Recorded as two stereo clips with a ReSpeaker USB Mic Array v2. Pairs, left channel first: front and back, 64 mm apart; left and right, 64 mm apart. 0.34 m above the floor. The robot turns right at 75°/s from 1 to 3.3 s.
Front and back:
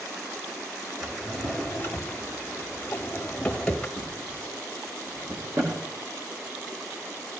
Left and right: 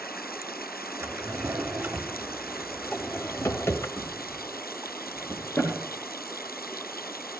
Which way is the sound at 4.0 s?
150° left.